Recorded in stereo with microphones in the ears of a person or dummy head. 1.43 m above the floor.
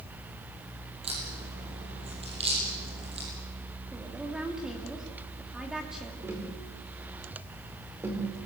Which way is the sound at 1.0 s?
35° right (ahead or behind).